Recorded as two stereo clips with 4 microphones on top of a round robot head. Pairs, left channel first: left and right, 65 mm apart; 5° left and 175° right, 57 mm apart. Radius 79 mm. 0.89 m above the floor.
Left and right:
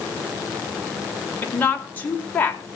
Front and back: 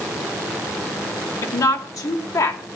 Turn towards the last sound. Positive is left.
turn(degrees=25)